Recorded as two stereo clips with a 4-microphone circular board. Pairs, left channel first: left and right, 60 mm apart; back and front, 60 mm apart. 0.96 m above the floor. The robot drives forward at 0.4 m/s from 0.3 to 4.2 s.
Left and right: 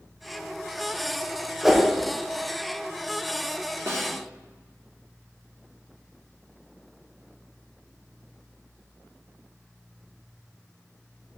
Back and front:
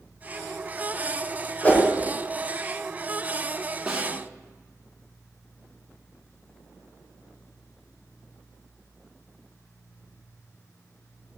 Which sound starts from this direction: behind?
A whoosh, at 1.6 s.